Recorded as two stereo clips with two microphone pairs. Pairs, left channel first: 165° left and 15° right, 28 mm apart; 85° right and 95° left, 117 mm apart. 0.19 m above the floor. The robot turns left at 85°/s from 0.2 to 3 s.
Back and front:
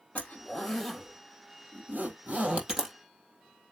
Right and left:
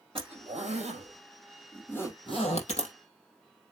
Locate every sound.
0.1 s a zipper: 130° left, 3.5 m; by 3.0 s 100° right, 3.5 m